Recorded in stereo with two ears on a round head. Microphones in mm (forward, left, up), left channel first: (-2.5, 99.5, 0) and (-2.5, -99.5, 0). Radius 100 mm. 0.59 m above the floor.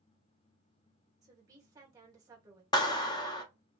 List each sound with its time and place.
1.2 s a woman speaking: 15° right (ahead or behind), 1.4 m
2.7 s a clap: 20° left (ahead or behind), 0.6 m